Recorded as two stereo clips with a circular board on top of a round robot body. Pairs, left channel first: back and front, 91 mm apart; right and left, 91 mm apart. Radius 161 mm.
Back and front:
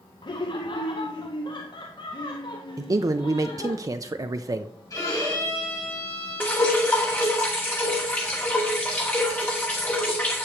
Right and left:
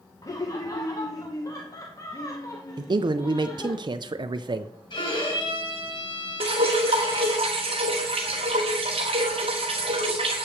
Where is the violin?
125° right, 5.5 m.